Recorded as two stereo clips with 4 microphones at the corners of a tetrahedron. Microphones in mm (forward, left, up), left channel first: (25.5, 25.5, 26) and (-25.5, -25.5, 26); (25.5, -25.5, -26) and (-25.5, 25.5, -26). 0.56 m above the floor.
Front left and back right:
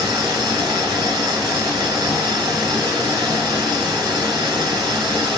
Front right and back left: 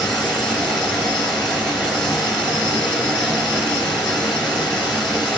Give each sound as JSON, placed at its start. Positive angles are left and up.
{"t": 0.0, "sound": "running water", "azimuth_deg": -125, "distance_m": 3.0}